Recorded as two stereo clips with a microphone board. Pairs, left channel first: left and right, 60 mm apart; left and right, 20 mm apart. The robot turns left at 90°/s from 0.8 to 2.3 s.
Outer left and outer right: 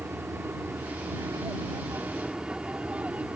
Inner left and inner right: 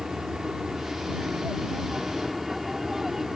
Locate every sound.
0.0 s an aircraft: 40° right (ahead or behind); by 3.4 s 25° right (ahead or behind)